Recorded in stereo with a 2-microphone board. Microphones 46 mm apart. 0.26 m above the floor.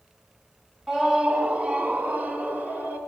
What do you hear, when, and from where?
0.9 s a scream: 10° right (ahead or behind), 1.0 m; by 3.0 s 35° right (ahead or behind), 3 m